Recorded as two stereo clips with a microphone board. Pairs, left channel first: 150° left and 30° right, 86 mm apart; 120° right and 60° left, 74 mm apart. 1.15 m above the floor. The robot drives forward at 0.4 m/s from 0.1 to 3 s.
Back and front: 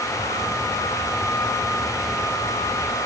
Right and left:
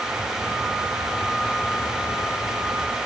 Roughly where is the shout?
No shout in this recording.